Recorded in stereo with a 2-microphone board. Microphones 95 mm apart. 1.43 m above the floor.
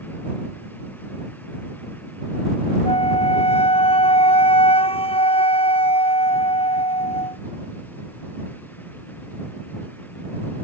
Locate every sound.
2.9 s a flute: 85° left